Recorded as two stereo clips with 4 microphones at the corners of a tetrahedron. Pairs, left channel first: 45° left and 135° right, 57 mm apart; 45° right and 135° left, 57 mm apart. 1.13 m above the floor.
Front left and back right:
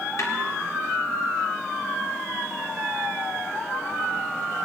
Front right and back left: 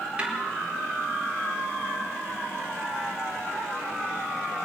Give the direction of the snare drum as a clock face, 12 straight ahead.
10 o'clock.